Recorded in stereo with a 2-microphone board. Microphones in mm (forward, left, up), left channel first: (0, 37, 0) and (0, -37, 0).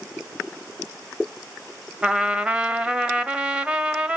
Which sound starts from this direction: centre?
A trumpet, at 2.0 s.